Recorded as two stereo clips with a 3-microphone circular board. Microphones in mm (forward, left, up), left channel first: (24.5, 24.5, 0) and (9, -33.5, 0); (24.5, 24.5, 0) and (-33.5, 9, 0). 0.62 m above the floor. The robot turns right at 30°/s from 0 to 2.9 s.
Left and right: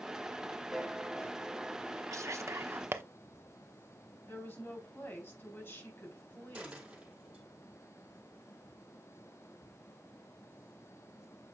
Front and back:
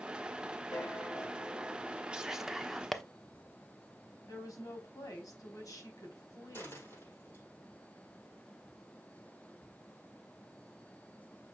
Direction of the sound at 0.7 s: 15° right.